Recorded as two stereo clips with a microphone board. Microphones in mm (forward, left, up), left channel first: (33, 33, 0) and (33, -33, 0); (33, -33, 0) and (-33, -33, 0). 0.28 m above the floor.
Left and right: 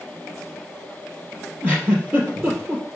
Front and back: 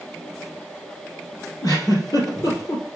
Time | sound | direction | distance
1.6 | a giggle | 25° right | 2.5 m